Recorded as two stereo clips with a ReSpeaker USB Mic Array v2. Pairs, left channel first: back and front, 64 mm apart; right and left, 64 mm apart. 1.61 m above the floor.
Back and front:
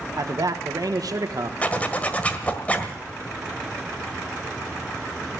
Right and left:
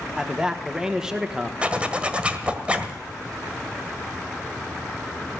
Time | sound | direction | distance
0.2 | a man speaking | 10° left | 1.4 m
1.6 | a zipper | 140° left | 1.5 m